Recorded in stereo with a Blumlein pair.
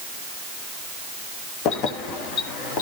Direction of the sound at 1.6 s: 40° left.